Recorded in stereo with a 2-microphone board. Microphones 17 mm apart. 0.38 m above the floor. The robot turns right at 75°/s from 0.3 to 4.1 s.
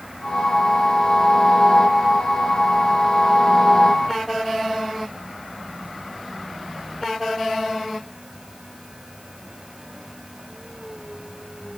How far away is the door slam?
I don't hear a door slam.